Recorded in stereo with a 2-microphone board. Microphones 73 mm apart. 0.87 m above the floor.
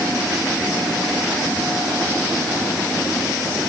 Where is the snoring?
No snoring in this recording.